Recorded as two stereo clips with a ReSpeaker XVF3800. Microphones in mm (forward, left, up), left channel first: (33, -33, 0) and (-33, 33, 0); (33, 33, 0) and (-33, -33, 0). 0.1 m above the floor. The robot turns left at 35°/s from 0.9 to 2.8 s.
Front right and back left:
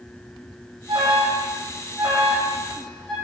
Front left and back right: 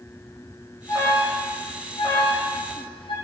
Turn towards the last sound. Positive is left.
turn(degrees=40)